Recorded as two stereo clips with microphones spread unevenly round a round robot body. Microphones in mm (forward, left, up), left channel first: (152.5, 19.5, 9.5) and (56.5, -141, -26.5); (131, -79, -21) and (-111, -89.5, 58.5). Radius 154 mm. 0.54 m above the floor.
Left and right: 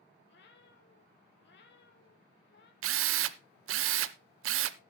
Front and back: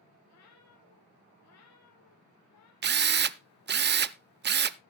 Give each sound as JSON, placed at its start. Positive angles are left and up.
{"t": 0.3, "sound": "a cat meowing", "azimuth_deg": 45, "distance_m": 2.5}
{"t": 2.8, "sound": "a drill", "azimuth_deg": -125, "distance_m": 0.5}